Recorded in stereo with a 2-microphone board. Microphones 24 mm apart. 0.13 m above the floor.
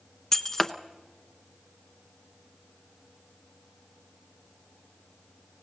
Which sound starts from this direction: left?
Breaking glass, at 0.3 s.